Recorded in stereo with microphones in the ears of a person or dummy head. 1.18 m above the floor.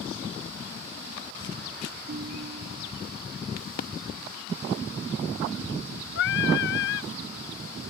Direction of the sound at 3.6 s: 50° left (ahead or behind).